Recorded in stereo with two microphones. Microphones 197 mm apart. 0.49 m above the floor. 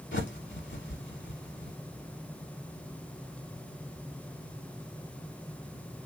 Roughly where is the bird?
Left.